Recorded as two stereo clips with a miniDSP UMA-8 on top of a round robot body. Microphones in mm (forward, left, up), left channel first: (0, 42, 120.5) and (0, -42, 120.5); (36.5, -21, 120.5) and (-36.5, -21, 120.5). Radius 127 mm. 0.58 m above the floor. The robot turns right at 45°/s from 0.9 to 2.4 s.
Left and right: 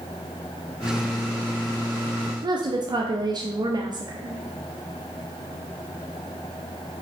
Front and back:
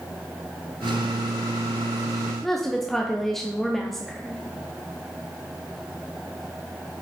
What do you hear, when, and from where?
2.4 s a woman speaking: 85° right, 1.0 m